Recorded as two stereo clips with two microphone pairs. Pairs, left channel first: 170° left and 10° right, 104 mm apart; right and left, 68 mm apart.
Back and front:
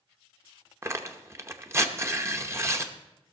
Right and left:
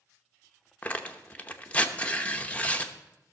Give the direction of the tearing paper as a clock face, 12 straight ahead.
1 o'clock.